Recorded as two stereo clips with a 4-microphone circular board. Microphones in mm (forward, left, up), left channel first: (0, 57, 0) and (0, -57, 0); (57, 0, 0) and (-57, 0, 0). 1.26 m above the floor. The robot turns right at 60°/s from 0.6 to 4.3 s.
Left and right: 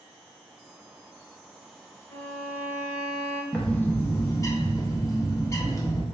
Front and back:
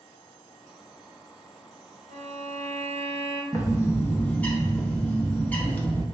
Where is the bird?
20° left, 0.6 m; by 6.0 s 65° left, 0.6 m.